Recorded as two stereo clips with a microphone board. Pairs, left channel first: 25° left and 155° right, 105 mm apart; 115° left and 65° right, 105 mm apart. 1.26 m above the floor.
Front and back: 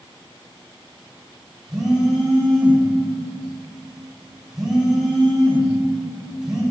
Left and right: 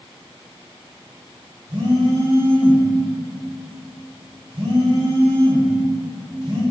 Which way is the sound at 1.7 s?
75° right.